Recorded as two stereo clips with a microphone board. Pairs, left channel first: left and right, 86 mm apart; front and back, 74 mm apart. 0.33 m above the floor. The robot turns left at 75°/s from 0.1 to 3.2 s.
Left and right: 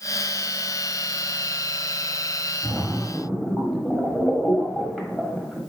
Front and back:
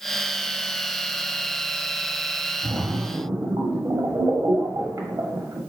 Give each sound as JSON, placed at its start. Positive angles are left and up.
{"t": 2.6, "sound": "a splash", "azimuth_deg": -135, "distance_m": 1.2}